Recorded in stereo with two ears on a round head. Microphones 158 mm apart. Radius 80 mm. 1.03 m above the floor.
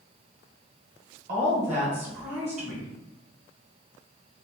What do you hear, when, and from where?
1.3 s a woman speaking: 40° right (ahead or behind), 1.0 m